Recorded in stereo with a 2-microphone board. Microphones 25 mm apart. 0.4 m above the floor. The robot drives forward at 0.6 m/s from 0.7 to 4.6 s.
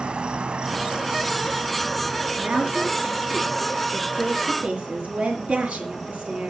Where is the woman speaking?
80° right, 5.5 m.